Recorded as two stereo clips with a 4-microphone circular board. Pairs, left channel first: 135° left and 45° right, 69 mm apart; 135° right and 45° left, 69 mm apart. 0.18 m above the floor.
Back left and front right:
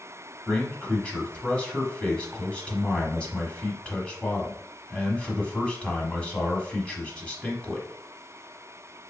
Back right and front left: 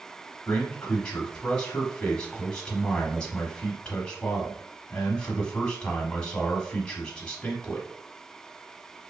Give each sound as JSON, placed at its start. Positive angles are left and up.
{"t": 0.5, "sound": "a man speaking", "azimuth_deg": 175, "distance_m": 1.0}